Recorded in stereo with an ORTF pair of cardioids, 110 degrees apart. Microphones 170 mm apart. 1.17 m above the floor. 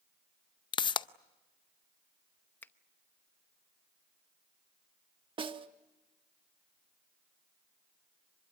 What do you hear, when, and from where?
0.7 s a pop: 30° left, 0.6 m
2.6 s a finger snap: 10° left, 0.8 m
5.4 s a snare drum: 30° right, 1.2 m